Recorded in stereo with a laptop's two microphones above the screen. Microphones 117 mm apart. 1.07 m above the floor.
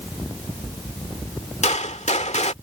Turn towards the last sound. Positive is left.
turn(degrees=75)  # may be behind; listen again after turning